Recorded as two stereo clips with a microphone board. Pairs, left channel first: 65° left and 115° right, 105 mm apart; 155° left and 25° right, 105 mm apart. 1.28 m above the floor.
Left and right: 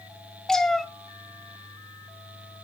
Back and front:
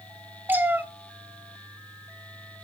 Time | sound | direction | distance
0.5 | a cat meowing | 5° right | 0.9 m